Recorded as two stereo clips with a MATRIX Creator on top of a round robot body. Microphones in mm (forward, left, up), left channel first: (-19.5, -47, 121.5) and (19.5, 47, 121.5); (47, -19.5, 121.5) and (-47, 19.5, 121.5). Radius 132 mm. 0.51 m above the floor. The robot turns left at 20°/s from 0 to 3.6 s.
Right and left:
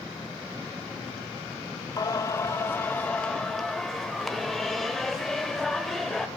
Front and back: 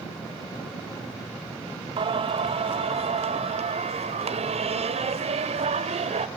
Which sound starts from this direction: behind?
Singing, at 2.0 s.